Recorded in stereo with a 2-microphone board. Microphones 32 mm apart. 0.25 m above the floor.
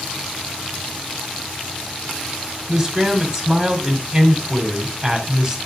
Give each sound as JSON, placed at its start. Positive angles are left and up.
{"t": 2.7, "sound": "a man speaking", "side_deg": -15, "distance_m": 1.9}